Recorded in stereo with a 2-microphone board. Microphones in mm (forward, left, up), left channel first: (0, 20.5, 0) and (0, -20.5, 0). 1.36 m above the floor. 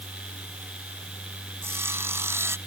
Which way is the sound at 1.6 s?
80° right.